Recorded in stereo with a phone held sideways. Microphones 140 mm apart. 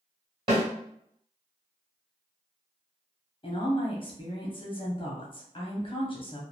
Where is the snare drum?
35° right (ahead or behind), 1.7 m.